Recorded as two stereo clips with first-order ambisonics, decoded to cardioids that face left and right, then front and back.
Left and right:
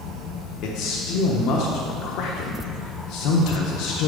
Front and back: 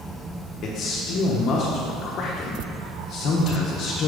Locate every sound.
0.6 s a man speaking: 55° left, 0.6 m